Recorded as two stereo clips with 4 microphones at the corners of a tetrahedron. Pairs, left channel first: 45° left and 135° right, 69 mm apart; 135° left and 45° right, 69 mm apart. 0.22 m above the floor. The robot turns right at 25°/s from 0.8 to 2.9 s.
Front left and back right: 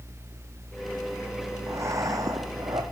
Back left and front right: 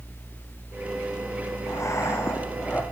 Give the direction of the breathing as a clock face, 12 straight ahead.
6 o'clock.